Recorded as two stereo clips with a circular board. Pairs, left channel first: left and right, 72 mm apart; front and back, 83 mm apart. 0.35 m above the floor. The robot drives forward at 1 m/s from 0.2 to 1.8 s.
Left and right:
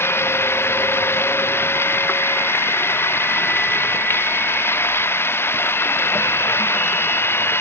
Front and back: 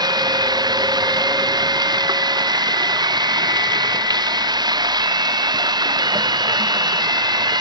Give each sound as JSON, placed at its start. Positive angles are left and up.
{"t": 0.0, "sound": "running water", "azimuth_deg": 145}